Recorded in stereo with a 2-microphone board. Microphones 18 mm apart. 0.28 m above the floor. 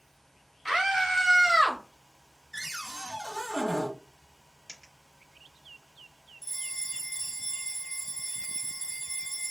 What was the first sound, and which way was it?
A scream, 5° right (ahead or behind).